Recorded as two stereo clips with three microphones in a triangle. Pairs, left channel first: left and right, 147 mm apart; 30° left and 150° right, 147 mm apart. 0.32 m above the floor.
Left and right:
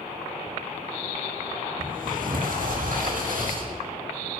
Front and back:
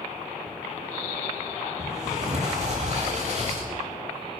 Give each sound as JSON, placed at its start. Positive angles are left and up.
{"t": 1.8, "sound": "a sliding door", "azimuth_deg": -110, "distance_m": 9.5}